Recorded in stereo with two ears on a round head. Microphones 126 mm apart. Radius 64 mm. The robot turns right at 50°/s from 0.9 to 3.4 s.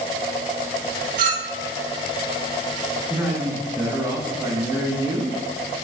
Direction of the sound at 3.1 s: 10° right (ahead or behind).